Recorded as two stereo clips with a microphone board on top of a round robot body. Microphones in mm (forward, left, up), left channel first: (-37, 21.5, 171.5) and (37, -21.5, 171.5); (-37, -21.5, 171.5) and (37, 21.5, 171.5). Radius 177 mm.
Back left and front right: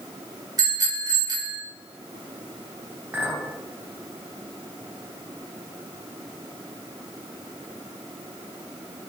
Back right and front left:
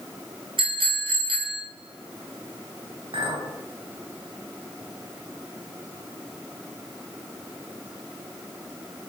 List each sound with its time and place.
0.6 s a bicycle bell: 15° left, 5.5 m
3.1 s a clink: 40° left, 3.5 m